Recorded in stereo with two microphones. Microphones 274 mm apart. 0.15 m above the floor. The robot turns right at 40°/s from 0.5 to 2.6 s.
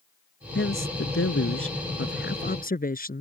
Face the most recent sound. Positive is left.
turn(degrees=140)